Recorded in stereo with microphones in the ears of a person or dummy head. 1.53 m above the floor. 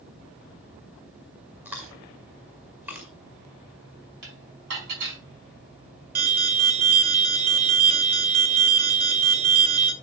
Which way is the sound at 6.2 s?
45° right (ahead or behind).